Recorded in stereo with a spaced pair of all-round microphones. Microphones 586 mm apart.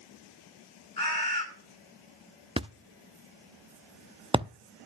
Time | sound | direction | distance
1.0 | a bird | 40° left (ahead or behind) | 8.5 m
2.6 | a thud | 10° right (ahead or behind) | 0.6 m